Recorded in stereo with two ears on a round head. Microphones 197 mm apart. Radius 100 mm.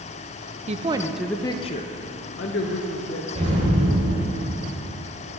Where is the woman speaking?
30° right (ahead or behind), 0.5 m; by 3.2 s 65° left (ahead or behind), 1.2 m.